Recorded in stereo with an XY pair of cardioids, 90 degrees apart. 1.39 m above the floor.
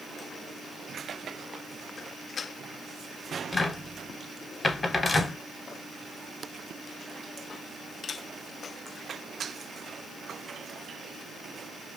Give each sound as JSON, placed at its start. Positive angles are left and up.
{"t": 3.5, "sound": "a cupboard door", "azimuth_deg": 35, "distance_m": 0.7}